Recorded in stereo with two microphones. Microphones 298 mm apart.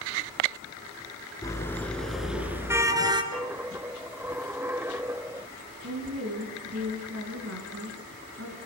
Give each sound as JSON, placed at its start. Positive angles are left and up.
{"t": 1.4, "sound": "a car horn", "side_deg": 10, "distance_m": 2.5}
{"t": 3.3, "sound": "a dropped coin", "side_deg": -10, "distance_m": 0.6}
{"t": 5.8, "sound": "a woman speaking", "side_deg": -50, "distance_m": 4.5}